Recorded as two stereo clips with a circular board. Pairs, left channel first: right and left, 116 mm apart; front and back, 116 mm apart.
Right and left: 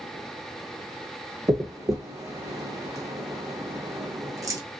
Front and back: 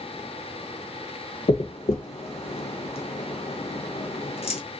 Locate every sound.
1.5 s a dropped coin: 30° left, 0.6 m